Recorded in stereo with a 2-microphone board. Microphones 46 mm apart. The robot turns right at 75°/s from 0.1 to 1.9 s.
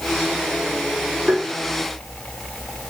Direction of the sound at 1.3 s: 15° right (ahead or behind).